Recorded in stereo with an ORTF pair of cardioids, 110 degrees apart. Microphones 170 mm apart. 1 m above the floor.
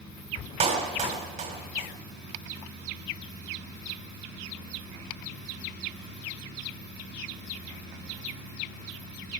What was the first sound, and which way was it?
A clap, 45° right.